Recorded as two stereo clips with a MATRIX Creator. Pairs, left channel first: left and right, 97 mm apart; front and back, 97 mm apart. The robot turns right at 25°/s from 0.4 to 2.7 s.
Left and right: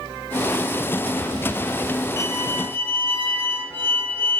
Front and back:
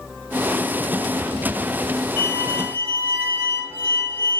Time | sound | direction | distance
2.2 | a violin | 140° left | 1.2 m